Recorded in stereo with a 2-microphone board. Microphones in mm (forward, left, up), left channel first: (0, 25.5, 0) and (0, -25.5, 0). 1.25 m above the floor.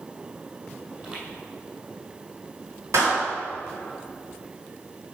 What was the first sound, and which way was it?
Footsteps, 20° right (ahead or behind).